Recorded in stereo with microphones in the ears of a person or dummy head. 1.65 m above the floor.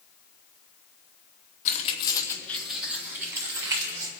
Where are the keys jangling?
40° left (ahead or behind), 1.6 m; by 4.1 s 25° right (ahead or behind), 4 m.